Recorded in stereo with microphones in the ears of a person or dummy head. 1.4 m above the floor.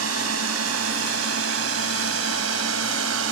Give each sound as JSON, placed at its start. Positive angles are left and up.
{"t": 0.0, "sound": "a drone", "side_deg": -70}